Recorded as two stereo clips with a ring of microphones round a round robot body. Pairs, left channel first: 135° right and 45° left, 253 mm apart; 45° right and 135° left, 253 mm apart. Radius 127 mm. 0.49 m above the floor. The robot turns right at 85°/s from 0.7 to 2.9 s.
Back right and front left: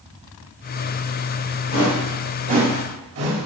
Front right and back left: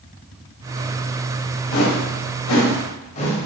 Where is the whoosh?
85° right, 1.9 m; by 3.5 s 20° left, 1.9 m.